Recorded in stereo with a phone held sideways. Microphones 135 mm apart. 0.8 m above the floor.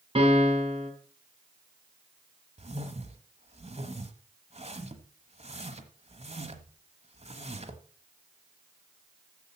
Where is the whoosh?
55° right (ahead or behind), 1.1 m.